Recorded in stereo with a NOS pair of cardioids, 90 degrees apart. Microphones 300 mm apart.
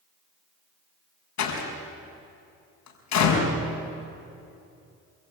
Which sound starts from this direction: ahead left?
A door slam, at 1.4 s.